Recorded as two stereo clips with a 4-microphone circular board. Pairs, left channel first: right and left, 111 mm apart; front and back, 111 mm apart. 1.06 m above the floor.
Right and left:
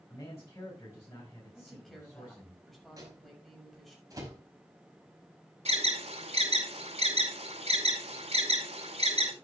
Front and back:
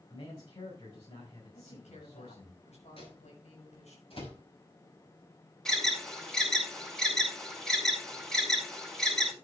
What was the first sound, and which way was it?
A man speaking, 25° right.